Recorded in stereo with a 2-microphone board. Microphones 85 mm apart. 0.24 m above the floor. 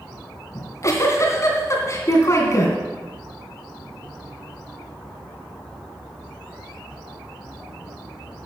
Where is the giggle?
35° left (ahead or behind), 2.5 m.